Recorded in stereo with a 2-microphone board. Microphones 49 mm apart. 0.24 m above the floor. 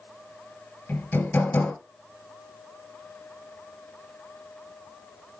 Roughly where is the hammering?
Left.